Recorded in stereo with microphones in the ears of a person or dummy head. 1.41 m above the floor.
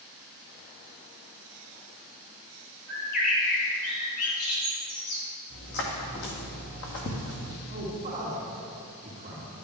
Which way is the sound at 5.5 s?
60° left (ahead or behind).